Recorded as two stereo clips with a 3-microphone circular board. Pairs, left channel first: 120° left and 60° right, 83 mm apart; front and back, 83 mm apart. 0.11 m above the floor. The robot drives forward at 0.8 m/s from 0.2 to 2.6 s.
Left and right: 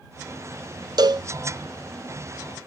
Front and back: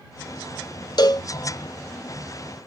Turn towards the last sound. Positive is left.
turn(degrees=-155)